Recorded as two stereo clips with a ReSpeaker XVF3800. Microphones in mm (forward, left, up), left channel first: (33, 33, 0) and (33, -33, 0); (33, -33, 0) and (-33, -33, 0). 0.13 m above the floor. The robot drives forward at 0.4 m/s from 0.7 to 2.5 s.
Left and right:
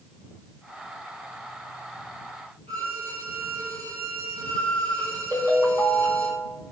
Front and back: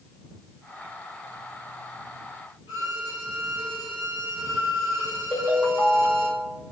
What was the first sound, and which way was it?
A violin, 150° left.